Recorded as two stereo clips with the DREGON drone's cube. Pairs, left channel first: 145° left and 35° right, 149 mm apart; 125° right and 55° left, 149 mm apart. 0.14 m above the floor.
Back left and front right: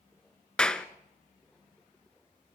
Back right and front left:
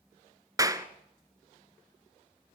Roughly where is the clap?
Left.